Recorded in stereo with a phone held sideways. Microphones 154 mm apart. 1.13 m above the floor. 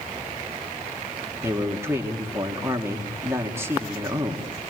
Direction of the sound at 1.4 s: 15° right (ahead or behind).